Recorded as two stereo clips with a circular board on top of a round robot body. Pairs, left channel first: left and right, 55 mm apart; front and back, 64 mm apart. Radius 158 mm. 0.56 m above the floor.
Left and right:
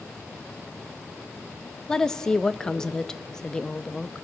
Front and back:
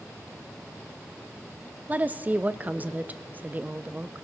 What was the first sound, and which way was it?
A woman speaking, 160° left.